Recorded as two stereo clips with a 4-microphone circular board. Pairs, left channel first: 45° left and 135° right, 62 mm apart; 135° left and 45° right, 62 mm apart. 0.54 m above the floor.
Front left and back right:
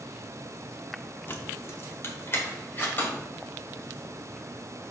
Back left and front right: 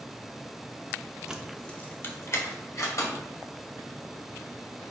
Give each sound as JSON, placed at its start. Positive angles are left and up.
{"t": 1.3, "sound": "keys jangling", "azimuth_deg": 25, "distance_m": 0.8}